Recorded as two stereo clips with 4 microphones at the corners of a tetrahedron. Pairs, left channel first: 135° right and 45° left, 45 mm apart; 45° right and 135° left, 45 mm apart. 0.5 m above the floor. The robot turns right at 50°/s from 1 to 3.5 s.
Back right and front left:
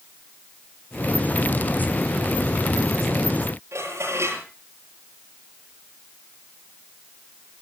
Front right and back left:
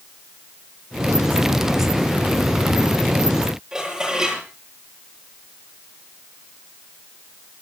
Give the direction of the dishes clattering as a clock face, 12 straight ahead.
10 o'clock.